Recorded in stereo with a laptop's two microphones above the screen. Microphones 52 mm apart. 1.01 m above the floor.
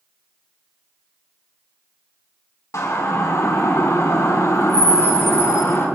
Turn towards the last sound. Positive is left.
turn(degrees=60)  # may be behind; listen again after turning